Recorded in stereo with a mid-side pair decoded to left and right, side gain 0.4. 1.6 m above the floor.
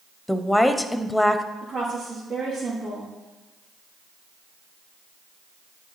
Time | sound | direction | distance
0.3 | a woman speaking | 10° left | 0.9 m
1.6 | a woman speaking | 65° right | 3.5 m